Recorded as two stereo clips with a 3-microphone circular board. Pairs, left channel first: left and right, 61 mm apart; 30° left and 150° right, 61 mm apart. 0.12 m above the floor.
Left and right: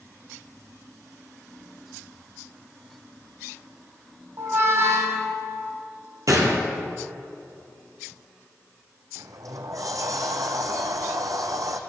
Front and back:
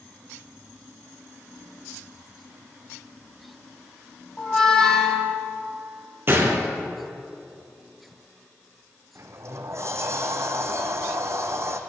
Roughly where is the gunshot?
Right.